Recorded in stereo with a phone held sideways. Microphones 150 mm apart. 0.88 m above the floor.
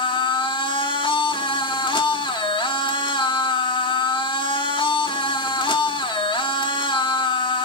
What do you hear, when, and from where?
0.0 s a machine running: 35° left (ahead or behind), 1.7 m